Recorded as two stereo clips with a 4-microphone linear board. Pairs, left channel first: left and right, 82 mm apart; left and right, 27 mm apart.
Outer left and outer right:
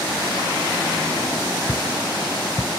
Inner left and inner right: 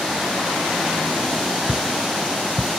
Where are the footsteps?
15° left (ahead or behind), 0.6 m.